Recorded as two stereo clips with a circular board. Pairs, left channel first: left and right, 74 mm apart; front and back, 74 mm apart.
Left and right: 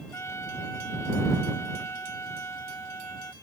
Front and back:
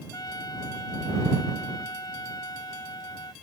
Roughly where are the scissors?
No scissors in this recording.